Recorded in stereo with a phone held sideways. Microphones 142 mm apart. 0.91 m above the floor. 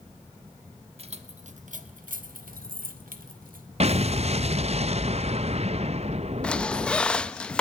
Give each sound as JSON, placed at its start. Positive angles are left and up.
{"t": 1.0, "sound": "keys jangling", "side_deg": -45, "distance_m": 1.4}
{"t": 3.8, "sound": "an explosion", "side_deg": -50, "distance_m": 0.6}
{"t": 6.4, "sound": "a squeak", "side_deg": 10, "distance_m": 0.6}